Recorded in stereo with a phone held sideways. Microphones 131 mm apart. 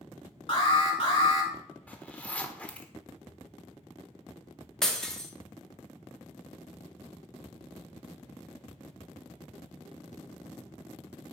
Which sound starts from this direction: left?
An alarm, at 0.5 s.